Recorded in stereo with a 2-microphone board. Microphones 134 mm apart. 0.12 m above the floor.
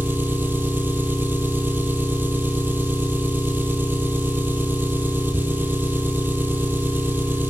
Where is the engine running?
15° right (ahead or behind), 0.9 m.